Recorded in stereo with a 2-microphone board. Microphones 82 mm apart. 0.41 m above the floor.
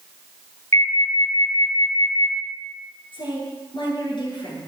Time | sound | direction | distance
0.7 | an alarm | 40° left (ahead or behind) | 7.5 m
3.1 | a woman speaking | 75° left (ahead or behind) | 7.5 m